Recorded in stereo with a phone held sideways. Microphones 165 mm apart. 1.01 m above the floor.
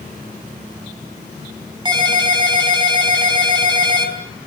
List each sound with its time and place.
1.9 s a ringtone: 25° right (ahead or behind), 4.5 m